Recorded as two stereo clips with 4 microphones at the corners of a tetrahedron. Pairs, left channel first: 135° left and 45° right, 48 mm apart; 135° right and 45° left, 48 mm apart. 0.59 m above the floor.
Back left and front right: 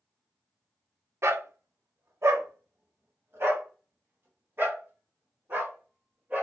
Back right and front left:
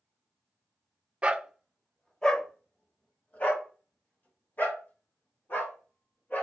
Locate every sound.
1.2 s a dog barking: 20° right, 0.5 m; by 6.4 s 90° right, 3 m